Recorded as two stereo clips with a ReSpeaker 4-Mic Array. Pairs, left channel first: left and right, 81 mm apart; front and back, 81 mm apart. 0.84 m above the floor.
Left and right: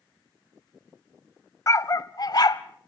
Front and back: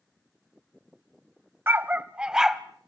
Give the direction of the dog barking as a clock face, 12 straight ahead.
8 o'clock.